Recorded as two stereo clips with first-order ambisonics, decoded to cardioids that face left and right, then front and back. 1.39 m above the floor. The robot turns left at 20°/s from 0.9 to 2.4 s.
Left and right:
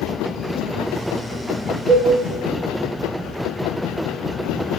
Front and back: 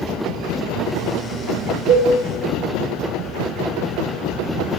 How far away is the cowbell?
About 1.5 m.